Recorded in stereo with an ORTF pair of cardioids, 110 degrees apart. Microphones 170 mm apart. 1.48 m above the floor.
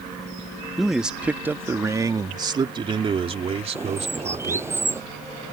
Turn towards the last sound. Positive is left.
turn(degrees=-15)